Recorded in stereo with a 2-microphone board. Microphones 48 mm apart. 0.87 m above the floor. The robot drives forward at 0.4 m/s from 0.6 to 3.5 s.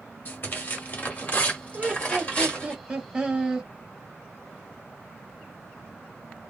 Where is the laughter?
25° right (ahead or behind), 1.3 m; by 3.7 s 20° right (ahead or behind), 1.7 m.